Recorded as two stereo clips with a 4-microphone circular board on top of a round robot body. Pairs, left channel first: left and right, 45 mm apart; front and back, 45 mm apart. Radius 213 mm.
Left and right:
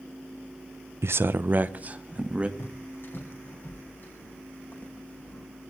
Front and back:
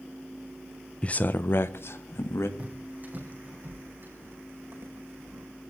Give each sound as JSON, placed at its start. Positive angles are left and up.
{"t": 1.0, "sound": "a man speaking", "azimuth_deg": -70, "distance_m": 0.5}
{"t": 2.6, "sound": "footsteps", "azimuth_deg": 120, "distance_m": 3.0}